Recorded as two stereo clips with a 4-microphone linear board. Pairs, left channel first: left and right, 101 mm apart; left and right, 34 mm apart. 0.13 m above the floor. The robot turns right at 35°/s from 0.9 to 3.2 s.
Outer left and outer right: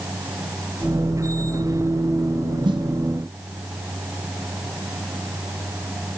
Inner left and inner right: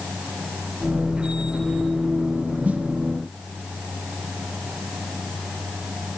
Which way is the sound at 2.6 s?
50° right (ahead or behind).